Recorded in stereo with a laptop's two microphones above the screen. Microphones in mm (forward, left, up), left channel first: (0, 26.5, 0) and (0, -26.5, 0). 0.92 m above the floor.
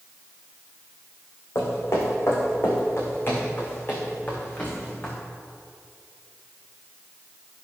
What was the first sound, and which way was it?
Footsteps, 55° left (ahead or behind).